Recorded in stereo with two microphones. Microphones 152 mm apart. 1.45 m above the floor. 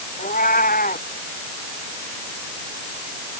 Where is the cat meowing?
65° left (ahead or behind).